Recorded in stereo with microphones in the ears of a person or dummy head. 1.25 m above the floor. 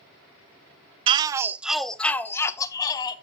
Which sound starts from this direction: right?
A shout, at 1.1 s.